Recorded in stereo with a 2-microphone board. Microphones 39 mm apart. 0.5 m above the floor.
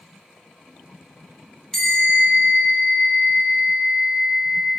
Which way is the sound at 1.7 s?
10° left (ahead or behind).